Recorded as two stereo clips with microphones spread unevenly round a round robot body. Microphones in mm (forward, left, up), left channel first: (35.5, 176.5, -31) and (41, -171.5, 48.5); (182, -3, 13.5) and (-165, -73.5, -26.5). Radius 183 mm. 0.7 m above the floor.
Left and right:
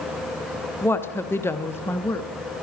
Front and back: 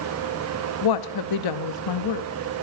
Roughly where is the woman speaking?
Ahead.